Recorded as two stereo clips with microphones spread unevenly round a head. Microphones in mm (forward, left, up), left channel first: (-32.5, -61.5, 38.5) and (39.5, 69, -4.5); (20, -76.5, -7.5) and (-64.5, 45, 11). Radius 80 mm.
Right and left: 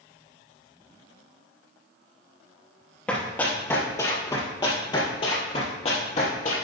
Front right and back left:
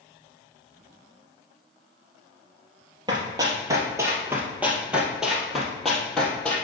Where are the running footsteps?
175° left, 2 m; by 6.5 s 140° right, 2.5 m.